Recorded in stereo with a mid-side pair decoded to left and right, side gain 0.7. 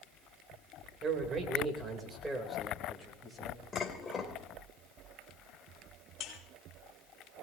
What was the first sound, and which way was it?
A man speaking, 35° right.